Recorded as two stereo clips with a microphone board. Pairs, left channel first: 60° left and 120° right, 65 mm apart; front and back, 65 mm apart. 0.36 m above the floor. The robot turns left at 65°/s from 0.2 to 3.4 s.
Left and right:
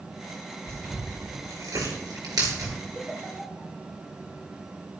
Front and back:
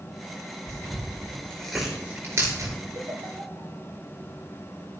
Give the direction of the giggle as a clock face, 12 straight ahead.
6 o'clock.